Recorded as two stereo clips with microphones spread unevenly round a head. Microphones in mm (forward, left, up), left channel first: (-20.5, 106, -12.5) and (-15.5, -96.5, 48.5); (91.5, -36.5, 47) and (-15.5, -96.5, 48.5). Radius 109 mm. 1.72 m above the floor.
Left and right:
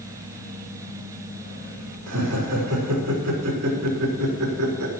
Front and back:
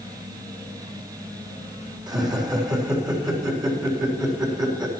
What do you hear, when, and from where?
2.1 s laughter: 95° right, 5 m